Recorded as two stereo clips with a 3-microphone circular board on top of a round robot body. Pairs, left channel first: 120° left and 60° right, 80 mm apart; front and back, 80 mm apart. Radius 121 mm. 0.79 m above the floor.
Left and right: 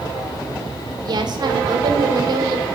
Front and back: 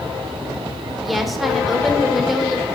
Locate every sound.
1.1 s a woman speaking: 90° right, 3 m